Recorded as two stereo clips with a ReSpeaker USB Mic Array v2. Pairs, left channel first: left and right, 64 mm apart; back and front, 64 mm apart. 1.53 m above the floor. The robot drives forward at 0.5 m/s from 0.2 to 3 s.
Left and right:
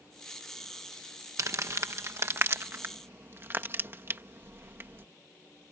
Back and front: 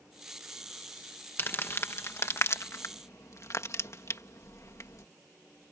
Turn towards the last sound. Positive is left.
turn(degrees=-140)